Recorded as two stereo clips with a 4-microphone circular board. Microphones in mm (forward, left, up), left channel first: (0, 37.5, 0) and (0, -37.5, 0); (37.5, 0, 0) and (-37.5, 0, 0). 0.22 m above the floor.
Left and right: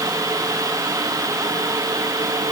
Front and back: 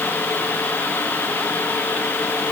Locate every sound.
Only background noise.